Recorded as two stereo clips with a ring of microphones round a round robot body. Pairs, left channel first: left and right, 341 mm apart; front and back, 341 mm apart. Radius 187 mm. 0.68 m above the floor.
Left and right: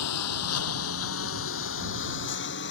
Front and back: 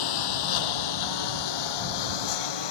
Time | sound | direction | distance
0.0 | a lawn mower | 40° left | ?